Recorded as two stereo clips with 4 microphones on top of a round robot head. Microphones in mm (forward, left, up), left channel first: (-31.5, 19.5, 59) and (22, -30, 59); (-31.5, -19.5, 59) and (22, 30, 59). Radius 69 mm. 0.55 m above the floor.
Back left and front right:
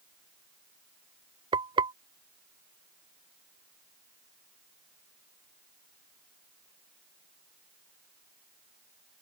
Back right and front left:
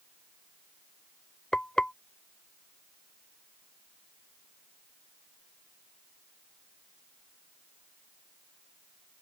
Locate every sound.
1.5 s frying: 55° right